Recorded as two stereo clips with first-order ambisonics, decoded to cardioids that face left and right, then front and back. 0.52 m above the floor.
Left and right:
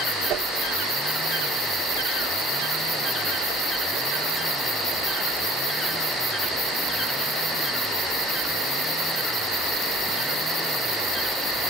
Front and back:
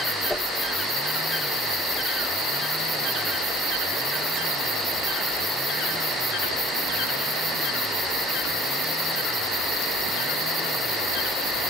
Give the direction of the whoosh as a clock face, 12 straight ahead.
3 o'clock.